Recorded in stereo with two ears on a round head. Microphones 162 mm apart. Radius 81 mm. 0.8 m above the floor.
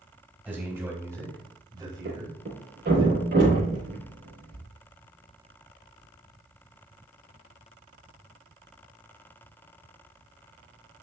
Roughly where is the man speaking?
Centre.